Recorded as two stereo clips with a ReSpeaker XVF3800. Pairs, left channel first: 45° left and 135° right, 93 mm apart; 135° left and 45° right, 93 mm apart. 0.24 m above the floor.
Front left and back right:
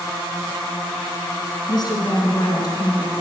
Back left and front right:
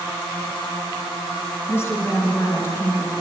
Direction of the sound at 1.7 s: 80° left.